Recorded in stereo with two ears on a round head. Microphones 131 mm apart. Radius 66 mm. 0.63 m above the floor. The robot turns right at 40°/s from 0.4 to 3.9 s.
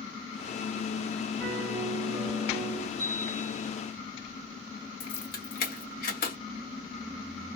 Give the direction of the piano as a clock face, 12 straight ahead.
1 o'clock.